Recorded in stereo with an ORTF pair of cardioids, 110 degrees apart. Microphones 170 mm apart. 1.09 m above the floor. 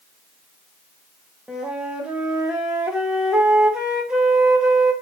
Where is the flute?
5° right, 0.8 m.